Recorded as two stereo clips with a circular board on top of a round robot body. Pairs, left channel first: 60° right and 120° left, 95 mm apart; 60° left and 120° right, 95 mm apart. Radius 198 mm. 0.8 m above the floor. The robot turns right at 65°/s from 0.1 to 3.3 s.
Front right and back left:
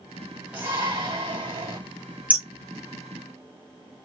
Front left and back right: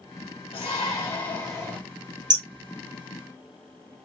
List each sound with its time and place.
0.5 s a shout: 55° left, 2.5 m; by 1.8 s 135° left, 2.5 m
2.3 s hammering: 165° right, 2.5 m; by 4.0 s 100° right, 2.5 m